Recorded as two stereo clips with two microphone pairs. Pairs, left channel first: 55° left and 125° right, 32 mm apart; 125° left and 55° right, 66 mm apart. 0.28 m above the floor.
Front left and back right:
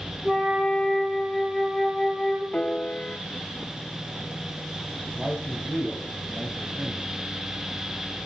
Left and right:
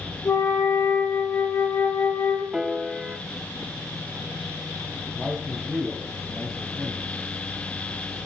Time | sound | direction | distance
0.2 | a flute | 165° left | 7 m
2.5 | a piano | 25° left | 0.9 m
5.2 | a man speaking | 150° right | 2 m